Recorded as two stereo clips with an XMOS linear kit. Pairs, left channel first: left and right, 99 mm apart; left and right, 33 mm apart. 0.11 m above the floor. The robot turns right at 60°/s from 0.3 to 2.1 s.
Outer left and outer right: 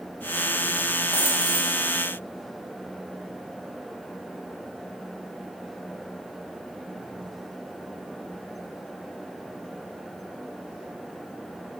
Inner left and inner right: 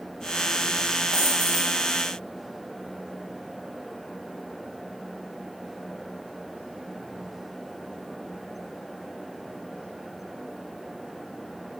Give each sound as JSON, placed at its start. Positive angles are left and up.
{"t": 1.1, "sound": "a dropped coin", "azimuth_deg": 155, "distance_m": 5.0}